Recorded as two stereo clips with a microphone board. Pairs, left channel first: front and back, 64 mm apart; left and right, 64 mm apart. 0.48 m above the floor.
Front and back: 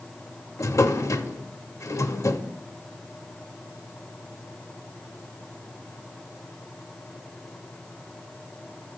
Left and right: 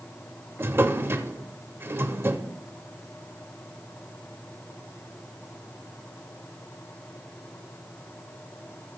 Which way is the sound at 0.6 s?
35° right.